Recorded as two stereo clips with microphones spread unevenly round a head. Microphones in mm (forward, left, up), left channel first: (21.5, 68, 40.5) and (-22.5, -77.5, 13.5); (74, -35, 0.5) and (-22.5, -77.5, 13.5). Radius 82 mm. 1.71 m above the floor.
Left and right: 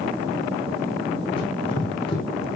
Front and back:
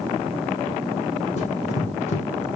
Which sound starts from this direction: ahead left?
Running footsteps, at 1.4 s.